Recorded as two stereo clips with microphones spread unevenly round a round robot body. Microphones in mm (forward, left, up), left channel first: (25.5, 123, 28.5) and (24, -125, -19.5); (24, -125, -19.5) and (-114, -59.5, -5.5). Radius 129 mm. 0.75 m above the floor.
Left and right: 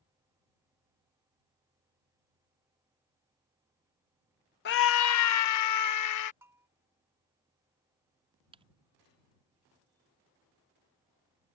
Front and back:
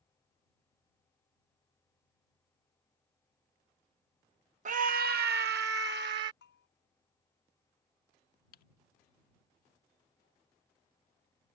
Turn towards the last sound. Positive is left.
turn(degrees=-25)